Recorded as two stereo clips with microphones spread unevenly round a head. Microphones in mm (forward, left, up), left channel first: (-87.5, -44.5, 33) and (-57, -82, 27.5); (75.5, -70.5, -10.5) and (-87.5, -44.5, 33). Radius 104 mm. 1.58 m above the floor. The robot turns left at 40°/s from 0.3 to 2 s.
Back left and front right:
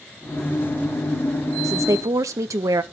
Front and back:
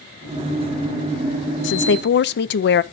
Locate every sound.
1.6 s a woman speaking: 15° right, 0.6 m; by 2.8 s 30° right, 0.6 m